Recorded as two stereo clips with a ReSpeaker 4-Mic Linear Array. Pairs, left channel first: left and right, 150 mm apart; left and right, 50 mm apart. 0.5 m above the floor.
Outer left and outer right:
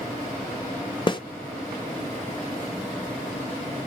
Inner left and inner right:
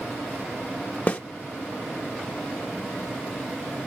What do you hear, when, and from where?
1.1 s a snare drum: 30° left (ahead or behind), 0.8 m